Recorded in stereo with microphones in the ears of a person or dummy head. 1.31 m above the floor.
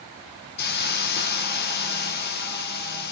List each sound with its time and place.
0.6 s a hiss: 55° left (ahead or behind), 0.7 m